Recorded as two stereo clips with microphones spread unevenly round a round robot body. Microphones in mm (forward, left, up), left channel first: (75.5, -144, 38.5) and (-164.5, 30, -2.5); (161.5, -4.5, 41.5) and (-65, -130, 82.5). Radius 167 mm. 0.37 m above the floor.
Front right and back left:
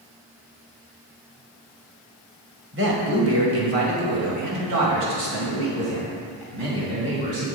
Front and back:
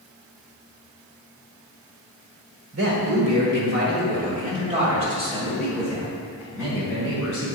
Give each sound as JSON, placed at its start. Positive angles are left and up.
{"t": 2.7, "sound": "a man speaking", "azimuth_deg": 180, "distance_m": 1.9}